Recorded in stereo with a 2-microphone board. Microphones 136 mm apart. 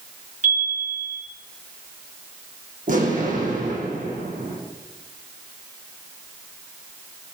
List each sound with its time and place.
0.4 s a chime: 75° right (ahead or behind), 5.5 m
2.9 s an explosion: 80° right, 6.5 m